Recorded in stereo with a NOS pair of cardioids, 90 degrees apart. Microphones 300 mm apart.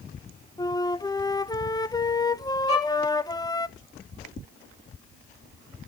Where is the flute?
15° left, 0.5 m.